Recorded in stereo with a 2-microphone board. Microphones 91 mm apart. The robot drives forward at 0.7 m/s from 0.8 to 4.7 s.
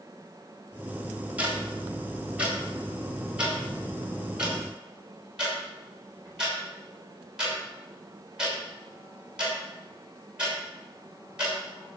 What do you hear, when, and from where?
1.4 s ticking: 15° right (ahead or behind), 3.5 m; by 11.6 s 10° right (ahead or behind), 6 m